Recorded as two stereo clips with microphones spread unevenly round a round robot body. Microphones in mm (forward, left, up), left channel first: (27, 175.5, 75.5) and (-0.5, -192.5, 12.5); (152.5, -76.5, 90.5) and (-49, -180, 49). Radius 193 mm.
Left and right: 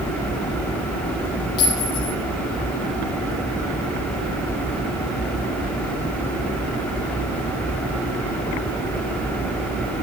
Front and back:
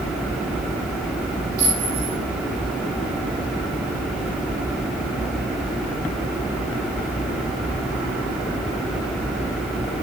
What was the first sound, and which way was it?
A clink, 110° left.